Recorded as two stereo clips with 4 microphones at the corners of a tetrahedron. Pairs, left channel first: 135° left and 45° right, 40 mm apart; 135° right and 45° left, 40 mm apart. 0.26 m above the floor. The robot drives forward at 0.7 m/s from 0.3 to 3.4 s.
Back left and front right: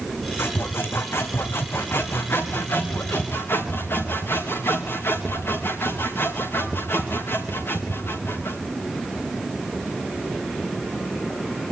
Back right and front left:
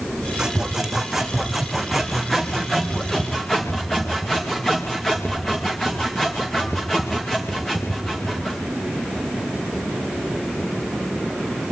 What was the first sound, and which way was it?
Sawing, 120° left.